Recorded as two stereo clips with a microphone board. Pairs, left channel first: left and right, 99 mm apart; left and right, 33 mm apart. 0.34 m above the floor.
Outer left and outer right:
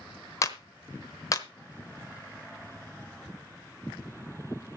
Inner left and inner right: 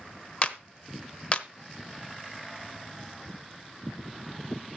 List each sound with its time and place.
0.4 s a clap: 35° left (ahead or behind), 0.9 m